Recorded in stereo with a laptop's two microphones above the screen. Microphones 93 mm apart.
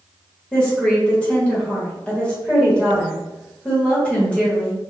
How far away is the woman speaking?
About 1.5 m.